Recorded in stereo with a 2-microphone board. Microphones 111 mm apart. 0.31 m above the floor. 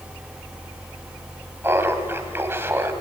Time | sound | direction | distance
1.6 | laughter | 20° right (ahead or behind) | 1.8 m